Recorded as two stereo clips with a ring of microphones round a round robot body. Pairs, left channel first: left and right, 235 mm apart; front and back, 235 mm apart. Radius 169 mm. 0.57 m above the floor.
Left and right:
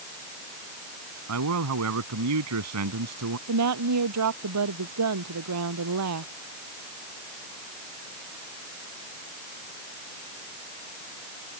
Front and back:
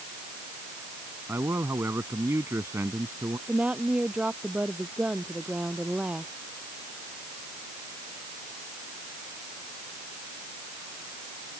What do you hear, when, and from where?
1.3 s a man speaking: 95° right
3.5 s a woman speaking: 95° right